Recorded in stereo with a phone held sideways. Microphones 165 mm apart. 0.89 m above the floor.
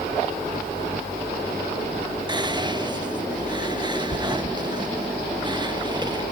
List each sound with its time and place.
2.3 s whispering: 25° right (ahead or behind), 1.2 m